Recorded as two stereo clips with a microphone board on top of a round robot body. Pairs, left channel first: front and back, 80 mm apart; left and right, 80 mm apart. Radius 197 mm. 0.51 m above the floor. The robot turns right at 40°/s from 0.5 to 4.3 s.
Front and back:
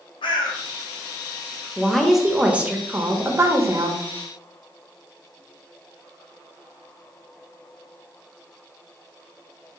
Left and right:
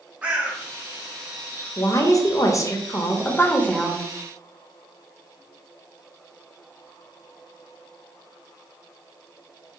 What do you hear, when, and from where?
0.2 s a bird: 15° right, 0.5 m; by 1.7 s 35° left, 0.5 m
1.8 s a woman speaking: 80° left, 0.9 m; by 4.0 s 170° left, 0.9 m